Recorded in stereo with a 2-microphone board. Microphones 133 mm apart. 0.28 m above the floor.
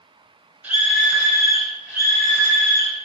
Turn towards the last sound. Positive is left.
turn(degrees=-10)  # may be behind; listen again after turning